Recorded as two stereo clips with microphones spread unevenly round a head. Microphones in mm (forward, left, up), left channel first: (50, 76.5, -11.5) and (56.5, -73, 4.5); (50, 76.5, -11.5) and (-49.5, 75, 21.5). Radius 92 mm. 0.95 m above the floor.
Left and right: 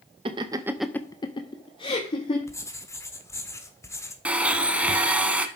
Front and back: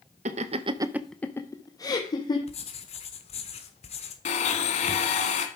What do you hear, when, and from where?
0.2 s laughter: 150° right, 0.9 m; by 2.4 s 40° left, 2.0 m
2.5 s writing: 20° left, 1.5 m
4.2 s a blender: 15° right, 1.2 m